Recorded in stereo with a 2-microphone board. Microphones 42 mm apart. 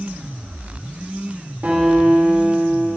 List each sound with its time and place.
1.6 s a guitar: 40° right (ahead or behind), 2.5 m